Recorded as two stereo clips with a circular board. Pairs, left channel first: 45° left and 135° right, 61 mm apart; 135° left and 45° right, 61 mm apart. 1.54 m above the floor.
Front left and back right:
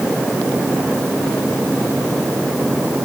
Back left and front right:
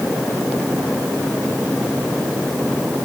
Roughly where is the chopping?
I don't hear chopping.